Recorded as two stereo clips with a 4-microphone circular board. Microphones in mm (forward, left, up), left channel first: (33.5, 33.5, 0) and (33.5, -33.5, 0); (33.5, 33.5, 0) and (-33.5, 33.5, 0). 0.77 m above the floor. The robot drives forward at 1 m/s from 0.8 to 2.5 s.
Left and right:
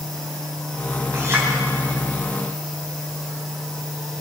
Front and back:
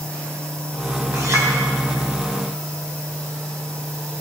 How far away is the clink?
About 3 m.